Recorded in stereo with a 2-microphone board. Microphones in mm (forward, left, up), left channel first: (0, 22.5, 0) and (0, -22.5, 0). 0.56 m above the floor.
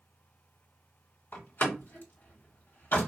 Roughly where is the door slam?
Left.